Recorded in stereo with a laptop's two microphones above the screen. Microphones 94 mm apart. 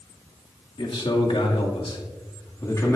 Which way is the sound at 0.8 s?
70° left (ahead or behind).